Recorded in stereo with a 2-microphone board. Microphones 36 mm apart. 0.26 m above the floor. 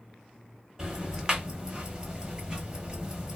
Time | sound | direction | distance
0.8 | ticking | 25° right (ahead or behind) | 0.9 m